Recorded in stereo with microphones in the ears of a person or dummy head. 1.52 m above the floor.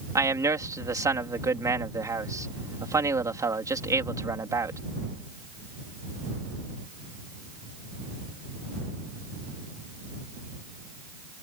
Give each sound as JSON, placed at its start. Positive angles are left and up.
{"t": 0.1, "sound": "a man speaking", "side_deg": -10}